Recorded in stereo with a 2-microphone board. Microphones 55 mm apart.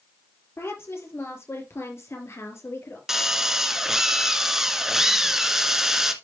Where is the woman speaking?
55° left (ahead or behind), 4 m.